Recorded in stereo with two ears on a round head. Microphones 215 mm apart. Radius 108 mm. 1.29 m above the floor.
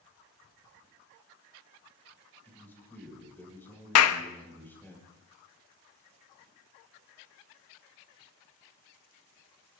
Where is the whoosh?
I don't hear a whoosh.